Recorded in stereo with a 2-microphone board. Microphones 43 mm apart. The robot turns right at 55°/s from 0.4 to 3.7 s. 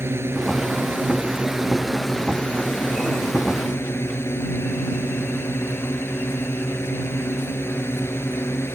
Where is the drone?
80° right; by 8.8 s 100° left.